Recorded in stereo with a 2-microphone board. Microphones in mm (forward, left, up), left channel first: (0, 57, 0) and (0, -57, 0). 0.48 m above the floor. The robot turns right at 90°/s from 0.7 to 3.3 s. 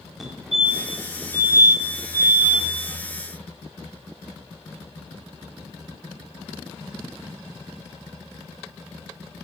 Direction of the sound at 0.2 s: Centre (ahead or behind).